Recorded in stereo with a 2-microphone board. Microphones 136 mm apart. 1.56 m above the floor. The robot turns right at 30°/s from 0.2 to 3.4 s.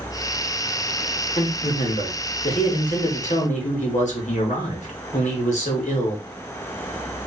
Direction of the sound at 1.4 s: 60° left.